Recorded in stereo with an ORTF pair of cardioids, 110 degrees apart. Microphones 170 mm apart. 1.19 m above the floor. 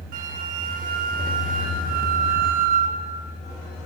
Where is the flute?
55° right, 0.7 m.